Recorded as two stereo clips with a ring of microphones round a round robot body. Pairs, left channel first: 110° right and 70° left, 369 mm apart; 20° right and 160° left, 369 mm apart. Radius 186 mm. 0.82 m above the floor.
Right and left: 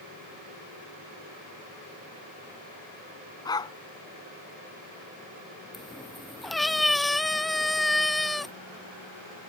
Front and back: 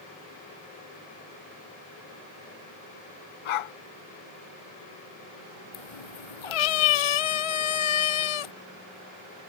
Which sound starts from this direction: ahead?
A cat meowing, at 5.7 s.